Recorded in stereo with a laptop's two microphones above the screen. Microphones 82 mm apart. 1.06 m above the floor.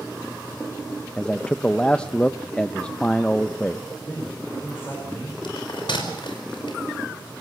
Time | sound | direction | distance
1.2 | a man speaking | 15° left (ahead or behind) | 0.6 m
4.1 | a man speaking | 30° left (ahead or behind) | 4.5 m
5.4 | a bell | 80° left | 5 m